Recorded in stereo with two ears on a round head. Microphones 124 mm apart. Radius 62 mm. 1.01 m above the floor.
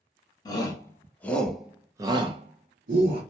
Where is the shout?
30° left (ahead or behind), 1.0 m; by 3.2 s 75° right (ahead or behind), 0.8 m.